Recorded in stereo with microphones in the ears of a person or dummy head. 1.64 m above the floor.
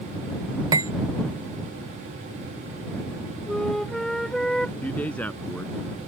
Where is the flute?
Centre (ahead or behind).